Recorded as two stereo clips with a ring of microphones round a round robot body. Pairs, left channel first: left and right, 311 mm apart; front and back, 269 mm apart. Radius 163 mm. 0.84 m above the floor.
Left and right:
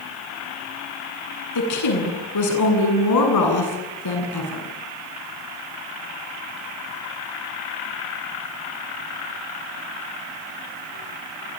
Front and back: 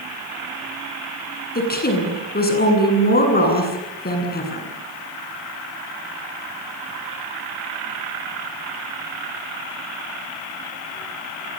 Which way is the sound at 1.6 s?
55° left.